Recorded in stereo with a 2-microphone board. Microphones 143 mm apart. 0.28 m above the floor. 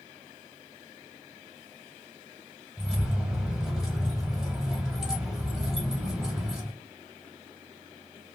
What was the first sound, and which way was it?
Keys jangling, 5° right (ahead or behind).